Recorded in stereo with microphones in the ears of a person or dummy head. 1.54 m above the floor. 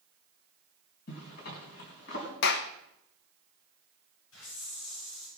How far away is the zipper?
About 4 m.